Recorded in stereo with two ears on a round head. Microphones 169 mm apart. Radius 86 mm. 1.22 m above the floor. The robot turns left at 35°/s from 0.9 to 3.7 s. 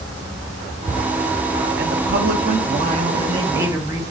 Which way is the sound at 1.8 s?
95° right.